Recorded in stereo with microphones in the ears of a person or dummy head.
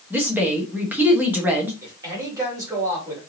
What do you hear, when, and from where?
0.1 s a woman speaking: 15° right (ahead or behind), 1.2 m
1.8 s a man speaking: 25° right (ahead or behind), 2.5 m